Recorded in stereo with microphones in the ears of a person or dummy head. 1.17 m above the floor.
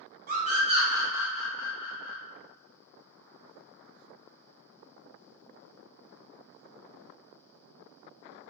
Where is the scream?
35° right (ahead or behind), 0.9 m; by 2.2 s 40° left (ahead or behind), 0.6 m.